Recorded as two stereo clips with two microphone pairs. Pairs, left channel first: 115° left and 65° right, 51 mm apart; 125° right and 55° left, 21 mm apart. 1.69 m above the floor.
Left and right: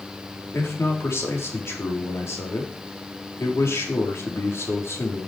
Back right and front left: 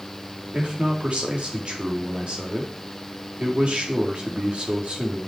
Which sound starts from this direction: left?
A man speaking, at 0.5 s.